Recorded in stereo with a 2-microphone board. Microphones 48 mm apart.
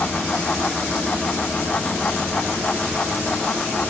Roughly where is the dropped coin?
I don't hear a dropped coin.